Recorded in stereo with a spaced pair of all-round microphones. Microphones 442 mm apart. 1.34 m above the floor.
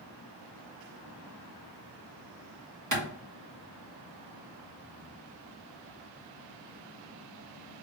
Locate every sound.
2.9 s a clap: 40° right (ahead or behind), 1.5 m